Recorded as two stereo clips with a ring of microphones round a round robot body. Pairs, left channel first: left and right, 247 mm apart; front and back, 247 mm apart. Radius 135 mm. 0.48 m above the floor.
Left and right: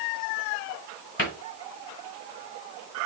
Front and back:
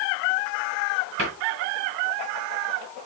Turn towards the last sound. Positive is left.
turn(degrees=130)